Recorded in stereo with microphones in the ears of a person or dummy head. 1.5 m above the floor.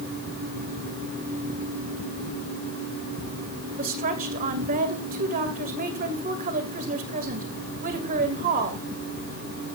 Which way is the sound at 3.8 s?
50° right (ahead or behind).